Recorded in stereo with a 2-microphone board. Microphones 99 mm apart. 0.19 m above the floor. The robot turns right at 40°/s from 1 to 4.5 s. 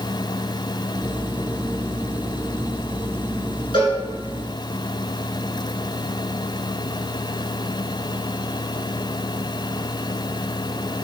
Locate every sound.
3.7 s a cowbell: 60° left (ahead or behind), 1.4 m; by 4.0 s 55° left (ahead or behind), 1.4 m